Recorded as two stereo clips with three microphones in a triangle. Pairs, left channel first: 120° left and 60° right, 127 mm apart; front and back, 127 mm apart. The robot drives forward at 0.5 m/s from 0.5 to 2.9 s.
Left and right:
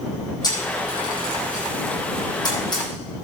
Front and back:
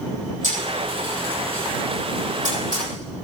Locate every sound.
0.4 s a camera shutter: 175° left, 6 m; by 3.2 s straight behind, 7 m